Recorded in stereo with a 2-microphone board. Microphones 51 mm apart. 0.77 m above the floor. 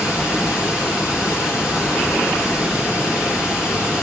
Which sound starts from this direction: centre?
Running water, at 0.0 s.